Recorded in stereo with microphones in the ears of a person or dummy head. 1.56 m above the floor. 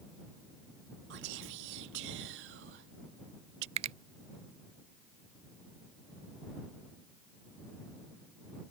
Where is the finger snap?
35° right (ahead or behind).